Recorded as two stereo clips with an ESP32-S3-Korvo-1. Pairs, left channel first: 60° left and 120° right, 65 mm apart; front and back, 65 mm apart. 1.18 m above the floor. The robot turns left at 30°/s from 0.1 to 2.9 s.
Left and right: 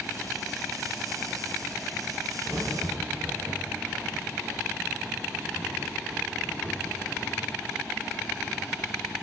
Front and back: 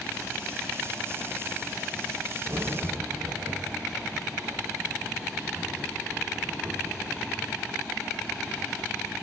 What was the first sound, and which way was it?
A crack, 150° right.